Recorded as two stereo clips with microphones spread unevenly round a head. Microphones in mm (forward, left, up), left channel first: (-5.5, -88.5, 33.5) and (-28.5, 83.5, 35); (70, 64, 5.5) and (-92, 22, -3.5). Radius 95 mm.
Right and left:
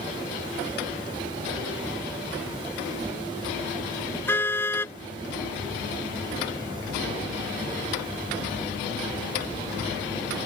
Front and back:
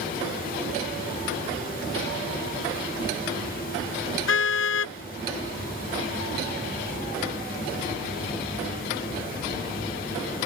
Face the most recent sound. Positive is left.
turn(degrees=-5)